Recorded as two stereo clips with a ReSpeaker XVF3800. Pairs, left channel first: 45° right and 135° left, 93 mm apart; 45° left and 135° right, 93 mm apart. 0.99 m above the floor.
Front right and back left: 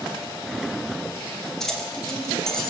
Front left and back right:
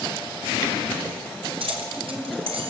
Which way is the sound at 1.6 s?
130° right.